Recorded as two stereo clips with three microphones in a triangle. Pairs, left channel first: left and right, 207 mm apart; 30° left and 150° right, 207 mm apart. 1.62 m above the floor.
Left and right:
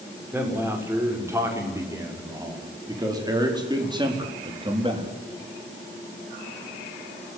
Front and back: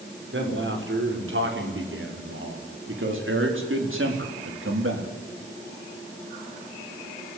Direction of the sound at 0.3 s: 170° right.